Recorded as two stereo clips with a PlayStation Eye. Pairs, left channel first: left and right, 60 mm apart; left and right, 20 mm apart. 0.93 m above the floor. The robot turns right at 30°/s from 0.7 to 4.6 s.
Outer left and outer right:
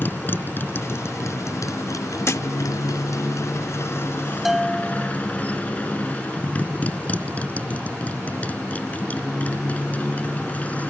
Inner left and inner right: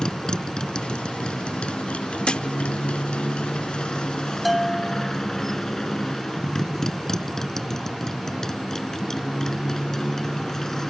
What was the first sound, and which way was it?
A motorcycle, 35° left.